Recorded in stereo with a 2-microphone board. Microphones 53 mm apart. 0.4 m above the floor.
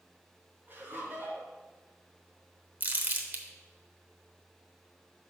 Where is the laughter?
40° right (ahead or behind), 3.5 m.